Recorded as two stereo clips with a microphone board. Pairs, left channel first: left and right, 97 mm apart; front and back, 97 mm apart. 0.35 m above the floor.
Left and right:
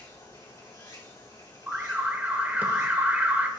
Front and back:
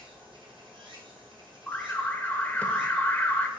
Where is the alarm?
45° right, 0.5 m.